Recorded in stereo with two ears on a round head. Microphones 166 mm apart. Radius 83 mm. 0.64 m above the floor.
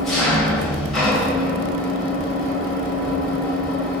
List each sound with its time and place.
0.0 s an engine running: centre (ahead or behind), 2 m